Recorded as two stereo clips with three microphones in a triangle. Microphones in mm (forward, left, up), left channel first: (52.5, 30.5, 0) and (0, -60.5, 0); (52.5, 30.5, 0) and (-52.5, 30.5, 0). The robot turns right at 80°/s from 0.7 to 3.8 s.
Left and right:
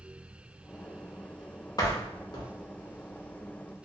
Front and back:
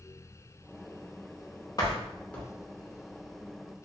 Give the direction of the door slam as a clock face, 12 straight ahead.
11 o'clock.